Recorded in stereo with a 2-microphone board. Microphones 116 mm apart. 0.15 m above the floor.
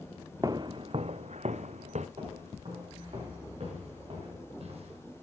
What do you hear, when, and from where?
0.4 s footsteps: 30° right (ahead or behind), 0.6 m; by 2.1 s 80° right, 1.0 m
2.2 s footsteps: 60° right (ahead or behind), 7.5 m; by 5.0 s 65° right (ahead or behind), 4 m